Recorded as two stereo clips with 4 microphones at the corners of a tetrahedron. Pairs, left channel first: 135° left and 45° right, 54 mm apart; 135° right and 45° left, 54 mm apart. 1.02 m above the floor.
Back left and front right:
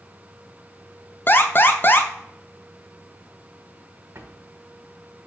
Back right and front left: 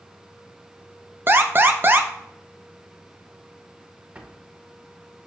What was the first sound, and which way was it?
An alarm, 95° left.